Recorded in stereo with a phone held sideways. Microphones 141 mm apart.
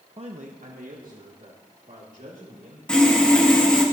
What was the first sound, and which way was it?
A man speaking, 40° right (ahead or behind).